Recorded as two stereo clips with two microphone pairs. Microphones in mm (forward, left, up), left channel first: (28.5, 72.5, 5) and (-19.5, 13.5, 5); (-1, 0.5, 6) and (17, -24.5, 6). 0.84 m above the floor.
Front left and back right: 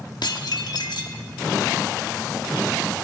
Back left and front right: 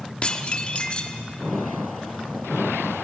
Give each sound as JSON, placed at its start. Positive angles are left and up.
{"t": 0.2, "sound": "dishes clattering", "azimuth_deg": 70, "distance_m": 1.2}